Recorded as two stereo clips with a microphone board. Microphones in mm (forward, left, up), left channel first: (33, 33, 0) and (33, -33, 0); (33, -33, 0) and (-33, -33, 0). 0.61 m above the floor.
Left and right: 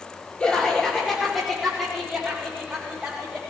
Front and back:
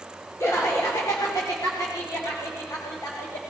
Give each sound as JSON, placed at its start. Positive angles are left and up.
{"t": 0.4, "sound": "laughter", "azimuth_deg": 15, "distance_m": 1.8}